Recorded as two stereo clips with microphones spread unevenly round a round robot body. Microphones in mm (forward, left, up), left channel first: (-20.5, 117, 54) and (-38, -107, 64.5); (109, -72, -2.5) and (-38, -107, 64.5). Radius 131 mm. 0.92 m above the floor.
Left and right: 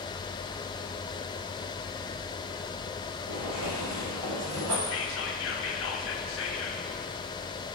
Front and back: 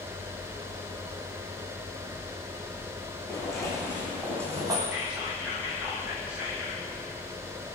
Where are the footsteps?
80° right, 3 m; by 4.8 s 115° right, 2.5 m.